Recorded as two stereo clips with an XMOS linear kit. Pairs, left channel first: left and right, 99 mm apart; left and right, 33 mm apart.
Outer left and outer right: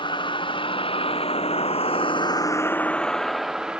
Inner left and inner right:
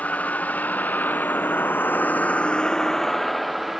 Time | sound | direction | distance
0.0 | a vehicle | 55° left (ahead or behind) | ?